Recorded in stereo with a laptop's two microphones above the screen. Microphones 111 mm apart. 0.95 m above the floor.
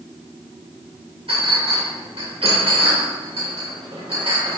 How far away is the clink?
About 2.5 m.